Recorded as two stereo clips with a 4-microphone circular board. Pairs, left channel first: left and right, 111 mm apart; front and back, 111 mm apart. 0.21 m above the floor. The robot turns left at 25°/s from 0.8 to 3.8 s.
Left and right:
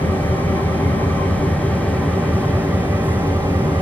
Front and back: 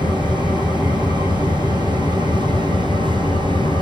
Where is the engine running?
35° left, 2.5 m; by 3.8 s 40° right, 2.5 m.